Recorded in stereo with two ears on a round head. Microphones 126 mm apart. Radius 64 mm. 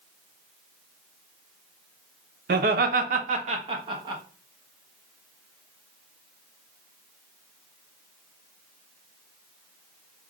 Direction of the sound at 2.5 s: 70° right (ahead or behind).